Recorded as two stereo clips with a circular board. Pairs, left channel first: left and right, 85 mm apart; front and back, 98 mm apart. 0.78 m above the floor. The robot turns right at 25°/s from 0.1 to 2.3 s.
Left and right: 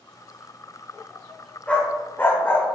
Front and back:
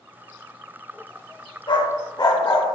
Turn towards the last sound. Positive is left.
turn(degrees=30)